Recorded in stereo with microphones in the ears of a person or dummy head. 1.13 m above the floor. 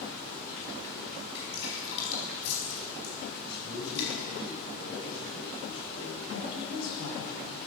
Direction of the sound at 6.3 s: 85° left.